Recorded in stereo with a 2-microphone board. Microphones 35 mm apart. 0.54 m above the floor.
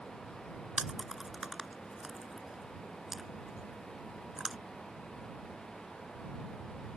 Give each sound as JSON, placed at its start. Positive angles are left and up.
{"t": 0.8, "sound": "chewing", "side_deg": -15}